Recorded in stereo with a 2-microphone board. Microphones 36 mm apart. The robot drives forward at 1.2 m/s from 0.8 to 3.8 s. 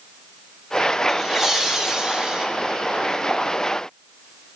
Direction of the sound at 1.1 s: 10° right (ahead or behind).